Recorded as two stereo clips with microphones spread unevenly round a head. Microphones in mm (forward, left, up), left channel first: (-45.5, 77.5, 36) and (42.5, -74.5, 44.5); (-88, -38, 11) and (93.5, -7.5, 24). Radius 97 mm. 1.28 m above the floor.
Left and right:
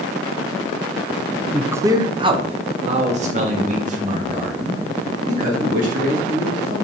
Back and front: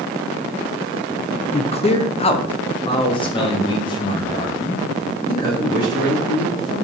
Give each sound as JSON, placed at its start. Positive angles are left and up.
{"t": 1.5, "sound": "a man speaking", "azimuth_deg": -145, "distance_m": 0.6}